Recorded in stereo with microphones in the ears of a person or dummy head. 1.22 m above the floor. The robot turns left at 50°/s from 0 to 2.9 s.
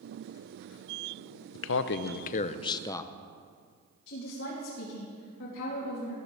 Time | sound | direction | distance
1.5 | a man speaking | 90° left | 0.6 m
4.1 | a woman speaking | 75° left (ahead or behind) | 2.5 m